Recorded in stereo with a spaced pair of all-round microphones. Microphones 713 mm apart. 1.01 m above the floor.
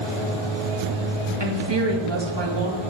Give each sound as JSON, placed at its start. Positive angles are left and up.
{"t": 1.4, "sound": "a woman speaking", "side_deg": -40, "distance_m": 1.7}